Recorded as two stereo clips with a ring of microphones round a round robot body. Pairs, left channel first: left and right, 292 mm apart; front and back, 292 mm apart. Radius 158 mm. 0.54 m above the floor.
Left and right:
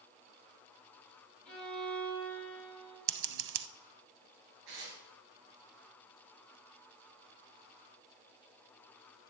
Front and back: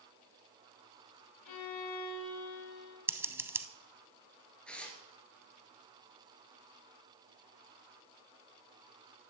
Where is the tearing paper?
85° right, 2.5 m.